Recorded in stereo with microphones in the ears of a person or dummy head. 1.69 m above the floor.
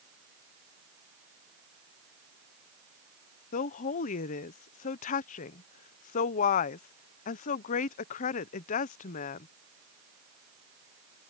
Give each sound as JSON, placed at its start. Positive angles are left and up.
{"t": 3.5, "sound": "a woman speaking", "side_deg": 45}